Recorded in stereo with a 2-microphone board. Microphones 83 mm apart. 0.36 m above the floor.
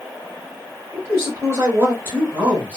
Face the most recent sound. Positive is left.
turn(degrees=-15)  # may be behind; listen again after turning